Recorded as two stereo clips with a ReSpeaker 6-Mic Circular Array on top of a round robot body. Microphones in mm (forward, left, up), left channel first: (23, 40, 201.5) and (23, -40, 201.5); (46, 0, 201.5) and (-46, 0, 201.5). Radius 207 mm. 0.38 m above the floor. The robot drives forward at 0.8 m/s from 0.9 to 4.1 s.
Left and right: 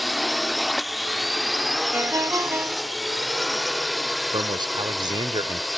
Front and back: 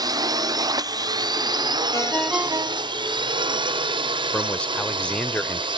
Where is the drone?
Straight behind.